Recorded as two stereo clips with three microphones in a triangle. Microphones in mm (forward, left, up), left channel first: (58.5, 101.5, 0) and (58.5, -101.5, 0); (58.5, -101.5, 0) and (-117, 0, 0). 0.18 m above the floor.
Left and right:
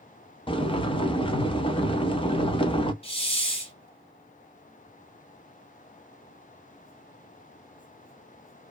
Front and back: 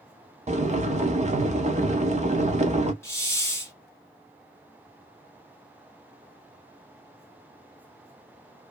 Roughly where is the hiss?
Ahead left.